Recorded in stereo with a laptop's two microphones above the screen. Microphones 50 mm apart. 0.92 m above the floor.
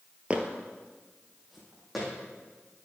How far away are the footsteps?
About 1.0 m.